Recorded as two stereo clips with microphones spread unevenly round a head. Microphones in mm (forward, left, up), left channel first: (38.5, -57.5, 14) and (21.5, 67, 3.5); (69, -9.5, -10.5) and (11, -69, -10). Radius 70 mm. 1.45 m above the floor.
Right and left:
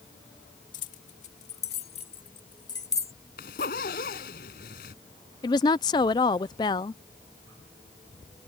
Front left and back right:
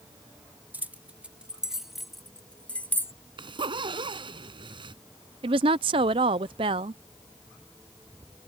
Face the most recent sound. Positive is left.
turn(degrees=-145)